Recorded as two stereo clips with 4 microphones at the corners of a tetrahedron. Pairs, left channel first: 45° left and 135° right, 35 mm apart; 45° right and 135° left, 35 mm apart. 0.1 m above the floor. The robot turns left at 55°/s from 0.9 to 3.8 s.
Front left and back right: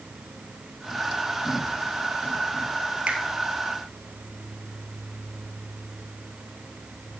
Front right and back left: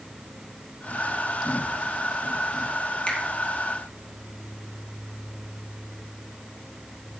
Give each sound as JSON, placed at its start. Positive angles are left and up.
{"t": 3.1, "sound": "a finger snap", "azimuth_deg": -90, "distance_m": 2.0}